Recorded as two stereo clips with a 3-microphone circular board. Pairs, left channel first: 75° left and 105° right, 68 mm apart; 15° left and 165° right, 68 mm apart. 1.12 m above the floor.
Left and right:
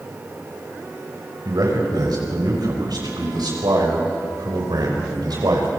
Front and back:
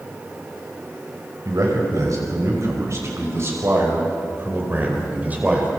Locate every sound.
1.4 s a man speaking: 130° right, 6 m; by 5.7 s 95° right, 5 m